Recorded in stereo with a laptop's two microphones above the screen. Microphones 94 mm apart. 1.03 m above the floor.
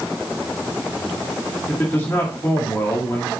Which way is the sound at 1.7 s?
25° left (ahead or behind).